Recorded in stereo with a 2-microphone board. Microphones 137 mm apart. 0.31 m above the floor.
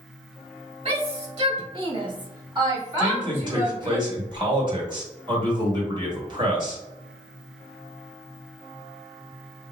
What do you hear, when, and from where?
0.8 s a shout: 45° right (ahead or behind), 1.7 m; by 4.0 s 5° right (ahead or behind), 1.3 m
3.0 s a man speaking: 35° right (ahead or behind), 1.6 m